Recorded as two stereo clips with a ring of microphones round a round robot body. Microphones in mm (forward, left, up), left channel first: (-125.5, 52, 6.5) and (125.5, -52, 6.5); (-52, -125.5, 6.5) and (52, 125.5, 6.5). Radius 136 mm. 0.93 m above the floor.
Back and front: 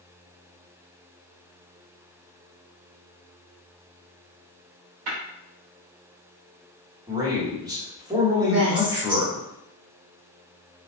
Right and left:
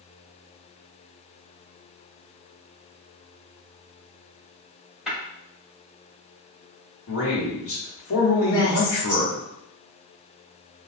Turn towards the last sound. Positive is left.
turn(degrees=-45)